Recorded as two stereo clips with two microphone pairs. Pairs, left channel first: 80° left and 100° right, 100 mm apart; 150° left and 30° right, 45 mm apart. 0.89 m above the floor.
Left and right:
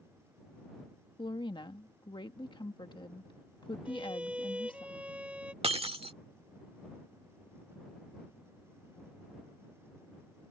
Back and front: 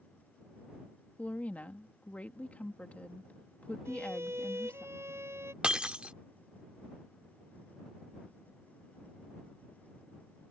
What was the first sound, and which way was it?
A woman speaking, 105° left.